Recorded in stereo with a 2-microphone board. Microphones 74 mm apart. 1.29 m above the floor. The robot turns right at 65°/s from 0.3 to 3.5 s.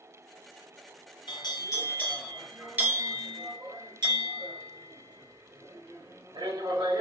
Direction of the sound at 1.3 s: 100° left.